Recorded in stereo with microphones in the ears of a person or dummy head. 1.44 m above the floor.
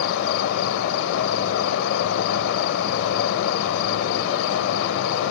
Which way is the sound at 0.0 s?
75° left (ahead or behind).